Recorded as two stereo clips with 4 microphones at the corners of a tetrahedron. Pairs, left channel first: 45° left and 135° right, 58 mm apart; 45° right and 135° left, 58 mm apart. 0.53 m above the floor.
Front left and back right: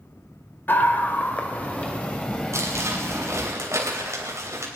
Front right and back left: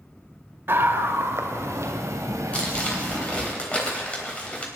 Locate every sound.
0.7 s a scream: 95° left, 1.7 m; by 3.5 s 120° left, 3 m
2.5 s crumpling: 110° right, 3.5 m